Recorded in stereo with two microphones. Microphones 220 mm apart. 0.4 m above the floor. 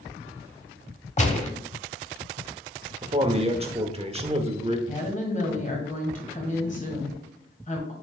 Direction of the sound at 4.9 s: 35° left (ahead or behind).